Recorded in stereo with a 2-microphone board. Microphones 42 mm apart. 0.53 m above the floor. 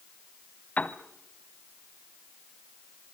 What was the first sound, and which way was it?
A piano, 35° left (ahead or behind).